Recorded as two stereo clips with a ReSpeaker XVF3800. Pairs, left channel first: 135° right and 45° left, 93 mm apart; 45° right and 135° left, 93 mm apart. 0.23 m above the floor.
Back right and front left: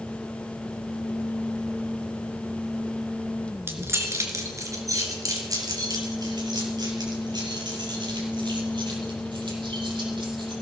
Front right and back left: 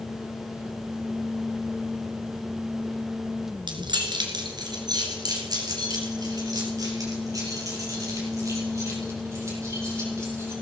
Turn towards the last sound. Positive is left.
turn(degrees=80)